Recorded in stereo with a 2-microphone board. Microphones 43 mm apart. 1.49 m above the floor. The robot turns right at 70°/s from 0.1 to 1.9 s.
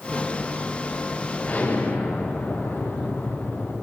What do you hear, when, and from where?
1.4 s an explosion: 35° left, 9 m; by 3.7 s 70° left, 9 m